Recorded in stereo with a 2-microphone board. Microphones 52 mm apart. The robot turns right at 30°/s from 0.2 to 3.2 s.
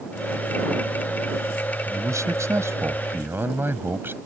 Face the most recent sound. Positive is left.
turn(degrees=-45)